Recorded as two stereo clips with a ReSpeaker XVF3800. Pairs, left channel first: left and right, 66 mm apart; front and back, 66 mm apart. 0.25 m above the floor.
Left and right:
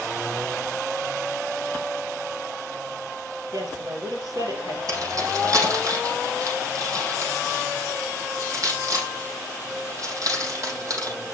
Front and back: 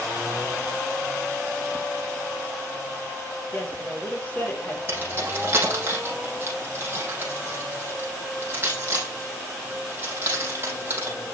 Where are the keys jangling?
125° right, 5.5 m.